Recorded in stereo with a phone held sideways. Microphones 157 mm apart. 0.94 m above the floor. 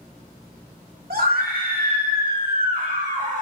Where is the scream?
70° right (ahead or behind), 2.5 m; by 3.4 s 50° right (ahead or behind), 2.5 m.